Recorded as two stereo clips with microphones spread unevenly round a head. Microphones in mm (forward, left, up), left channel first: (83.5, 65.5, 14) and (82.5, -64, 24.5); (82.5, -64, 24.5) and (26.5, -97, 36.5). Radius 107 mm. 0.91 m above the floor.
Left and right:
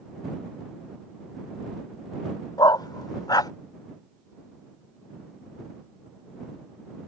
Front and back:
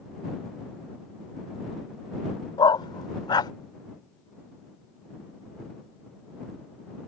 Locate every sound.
2.6 s a dog barking: 30° left